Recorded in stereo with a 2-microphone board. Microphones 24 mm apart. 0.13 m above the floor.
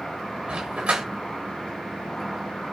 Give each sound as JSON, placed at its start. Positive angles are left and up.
{"t": 0.5, "sound": "a dog barking", "side_deg": -50, "distance_m": 4.0}